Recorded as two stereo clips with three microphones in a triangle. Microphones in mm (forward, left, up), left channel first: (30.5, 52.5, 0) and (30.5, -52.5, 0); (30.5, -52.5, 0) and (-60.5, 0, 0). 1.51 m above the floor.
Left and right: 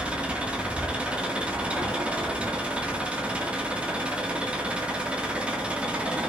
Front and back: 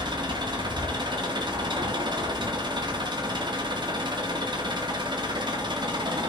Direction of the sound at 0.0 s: 170° right.